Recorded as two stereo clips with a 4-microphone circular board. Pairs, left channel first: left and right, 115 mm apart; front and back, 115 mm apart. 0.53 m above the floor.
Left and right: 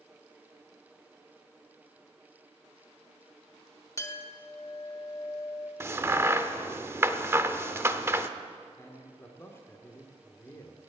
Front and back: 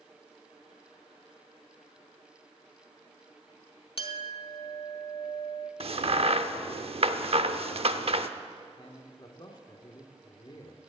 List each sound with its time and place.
4.0 s a clink: 30° left, 1.0 m
5.8 s a crack: 155° right, 0.7 m
8.8 s a man speaking: 30° left, 1.3 m